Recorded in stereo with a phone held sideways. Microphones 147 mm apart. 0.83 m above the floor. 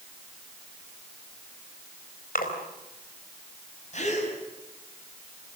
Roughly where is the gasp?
Left.